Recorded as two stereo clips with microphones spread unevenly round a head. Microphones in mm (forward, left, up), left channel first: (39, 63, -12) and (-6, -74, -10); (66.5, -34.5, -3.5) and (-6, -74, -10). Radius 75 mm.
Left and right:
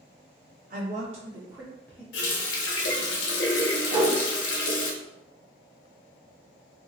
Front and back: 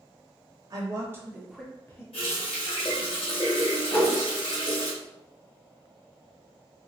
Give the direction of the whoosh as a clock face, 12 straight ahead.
1 o'clock.